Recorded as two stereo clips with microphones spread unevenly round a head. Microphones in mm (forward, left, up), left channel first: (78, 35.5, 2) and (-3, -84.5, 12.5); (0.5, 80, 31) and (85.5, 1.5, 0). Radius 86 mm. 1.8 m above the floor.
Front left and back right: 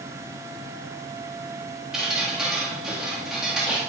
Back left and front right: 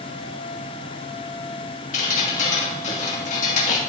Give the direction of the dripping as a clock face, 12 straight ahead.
7 o'clock.